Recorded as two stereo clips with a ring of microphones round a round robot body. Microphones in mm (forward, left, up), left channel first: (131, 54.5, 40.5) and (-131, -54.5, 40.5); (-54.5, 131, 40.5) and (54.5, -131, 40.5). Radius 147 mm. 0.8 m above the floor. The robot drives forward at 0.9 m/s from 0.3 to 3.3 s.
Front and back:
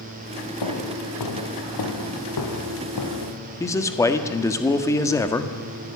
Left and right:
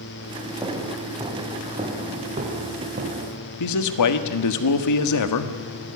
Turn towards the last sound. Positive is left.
turn(degrees=100)